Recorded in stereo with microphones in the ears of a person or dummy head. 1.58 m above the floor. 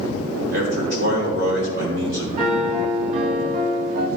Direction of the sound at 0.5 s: 60° right (ahead or behind).